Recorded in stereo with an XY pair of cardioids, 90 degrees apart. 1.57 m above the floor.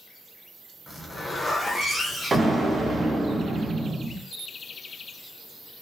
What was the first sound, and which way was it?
A zipper, 30° left.